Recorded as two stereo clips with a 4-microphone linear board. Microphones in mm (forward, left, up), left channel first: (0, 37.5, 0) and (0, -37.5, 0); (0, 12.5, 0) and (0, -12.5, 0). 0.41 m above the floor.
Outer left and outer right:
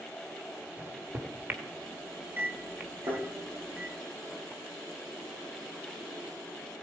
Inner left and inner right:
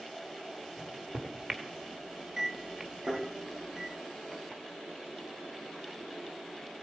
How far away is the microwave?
About 1.0 m.